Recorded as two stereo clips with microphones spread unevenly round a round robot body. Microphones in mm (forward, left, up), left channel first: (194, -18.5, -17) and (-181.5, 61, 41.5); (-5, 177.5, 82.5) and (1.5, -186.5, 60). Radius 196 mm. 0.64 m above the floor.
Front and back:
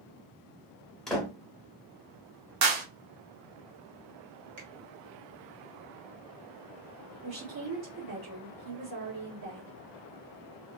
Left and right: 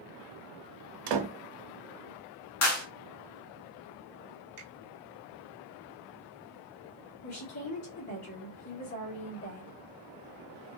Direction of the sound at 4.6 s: 145° right.